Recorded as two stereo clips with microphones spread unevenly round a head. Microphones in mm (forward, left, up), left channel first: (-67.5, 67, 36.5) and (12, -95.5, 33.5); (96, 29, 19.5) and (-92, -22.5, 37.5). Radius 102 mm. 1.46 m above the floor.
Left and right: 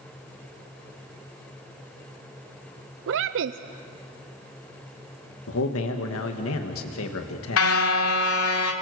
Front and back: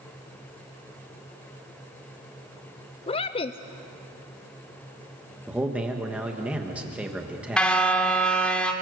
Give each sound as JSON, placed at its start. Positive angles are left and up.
{"t": 3.1, "sound": "a woman speaking", "azimuth_deg": -45, "distance_m": 0.5}
{"t": 5.5, "sound": "a man speaking", "azimuth_deg": 110, "distance_m": 1.6}
{"t": 7.6, "sound": "a car horn", "azimuth_deg": 100, "distance_m": 2.5}